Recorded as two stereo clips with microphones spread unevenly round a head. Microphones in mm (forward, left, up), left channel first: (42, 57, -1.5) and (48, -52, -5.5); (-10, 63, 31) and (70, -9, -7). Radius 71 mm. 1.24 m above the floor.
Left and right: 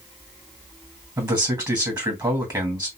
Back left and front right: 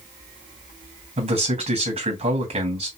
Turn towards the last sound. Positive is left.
turn(degrees=-25)